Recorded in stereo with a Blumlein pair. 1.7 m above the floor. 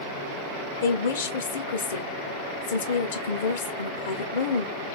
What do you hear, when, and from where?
0.8 s a woman speaking: 65° left, 0.6 m